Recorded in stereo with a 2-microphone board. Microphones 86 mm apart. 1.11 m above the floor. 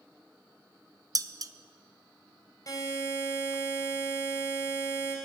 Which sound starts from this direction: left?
A buzzer, at 2.7 s.